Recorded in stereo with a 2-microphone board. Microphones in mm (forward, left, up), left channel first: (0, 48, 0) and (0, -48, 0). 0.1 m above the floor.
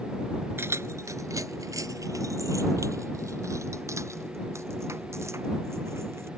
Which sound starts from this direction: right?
Keys jangling, at 0.6 s.